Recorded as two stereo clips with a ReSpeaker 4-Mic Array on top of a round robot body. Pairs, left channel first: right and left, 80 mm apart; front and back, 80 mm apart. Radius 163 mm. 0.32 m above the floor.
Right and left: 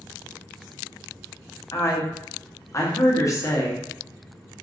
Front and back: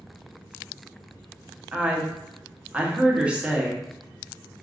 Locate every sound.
1.7 s a woman speaking: 110° right, 1.1 m